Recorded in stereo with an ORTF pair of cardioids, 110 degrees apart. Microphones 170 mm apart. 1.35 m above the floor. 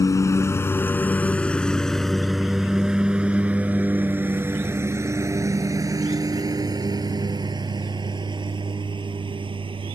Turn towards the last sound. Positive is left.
turn(degrees=-30)